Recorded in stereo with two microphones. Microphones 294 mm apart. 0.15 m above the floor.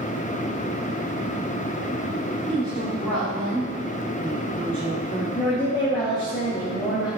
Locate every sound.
2.5 s a woman speaking: 5° left (ahead or behind), 4.5 m
5.3 s a woman speaking: 15° left (ahead or behind), 3 m